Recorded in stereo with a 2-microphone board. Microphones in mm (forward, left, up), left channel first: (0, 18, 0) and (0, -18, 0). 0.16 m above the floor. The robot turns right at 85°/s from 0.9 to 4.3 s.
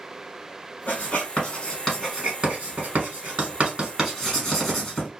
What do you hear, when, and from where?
0.9 s writing: 55° left (ahead or behind), 1.8 m; by 5.1 s 10° left (ahead or behind), 1.8 m